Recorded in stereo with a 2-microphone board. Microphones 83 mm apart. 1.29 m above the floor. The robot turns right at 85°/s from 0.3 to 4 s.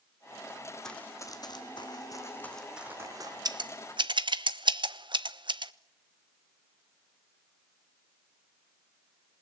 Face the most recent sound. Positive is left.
turn(degrees=-70)  # may be behind; listen again after turning